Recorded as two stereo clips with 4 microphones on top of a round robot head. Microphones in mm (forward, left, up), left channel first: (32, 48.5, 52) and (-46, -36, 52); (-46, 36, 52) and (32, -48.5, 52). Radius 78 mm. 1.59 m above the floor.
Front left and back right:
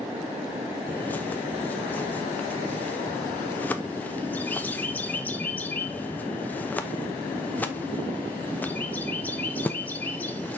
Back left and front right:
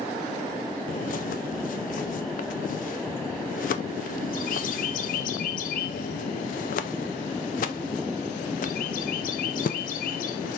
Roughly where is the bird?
Behind left.